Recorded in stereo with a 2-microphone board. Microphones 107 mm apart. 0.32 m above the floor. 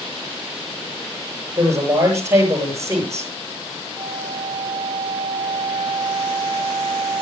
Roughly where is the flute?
Right.